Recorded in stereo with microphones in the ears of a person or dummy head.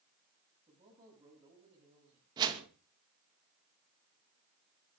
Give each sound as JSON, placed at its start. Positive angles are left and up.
{"t": 0.7, "sound": "a man speaking", "side_deg": -20, "distance_m": 10.0}
{"t": 2.4, "sound": "a whoosh", "side_deg": -20, "distance_m": 2.5}